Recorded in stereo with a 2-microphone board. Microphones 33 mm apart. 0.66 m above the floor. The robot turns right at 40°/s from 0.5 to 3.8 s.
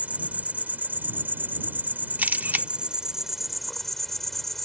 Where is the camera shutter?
55° right (ahead or behind); by 2.7 s 70° right (ahead or behind).